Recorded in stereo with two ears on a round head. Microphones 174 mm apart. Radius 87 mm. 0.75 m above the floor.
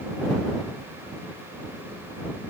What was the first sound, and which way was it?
Only background noise.